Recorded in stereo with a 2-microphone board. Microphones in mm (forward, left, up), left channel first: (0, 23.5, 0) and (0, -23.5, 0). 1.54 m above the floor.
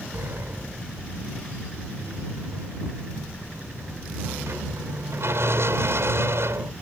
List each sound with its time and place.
0.1 s a sliding door: 70° right (ahead or behind)